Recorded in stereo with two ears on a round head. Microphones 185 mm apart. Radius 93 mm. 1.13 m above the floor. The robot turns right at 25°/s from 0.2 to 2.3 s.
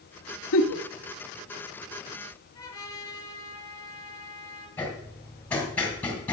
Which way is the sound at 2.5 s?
15° left (ahead or behind).